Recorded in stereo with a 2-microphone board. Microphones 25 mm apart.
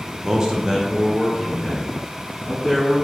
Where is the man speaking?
25° right (ahead or behind), 0.7 m; by 3.0 s 5° right (ahead or behind), 3 m.